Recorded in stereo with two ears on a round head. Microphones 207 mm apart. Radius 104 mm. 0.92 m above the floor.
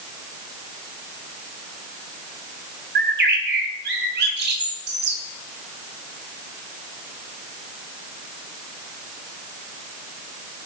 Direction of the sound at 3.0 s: 50° right (ahead or behind).